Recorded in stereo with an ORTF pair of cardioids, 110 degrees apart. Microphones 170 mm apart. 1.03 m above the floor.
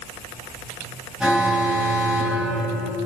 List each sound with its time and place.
1.2 s an alarm: 5° right, 9.5 m